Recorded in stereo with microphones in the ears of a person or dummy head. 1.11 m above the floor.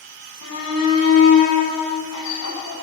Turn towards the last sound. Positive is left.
turn(degrees=85)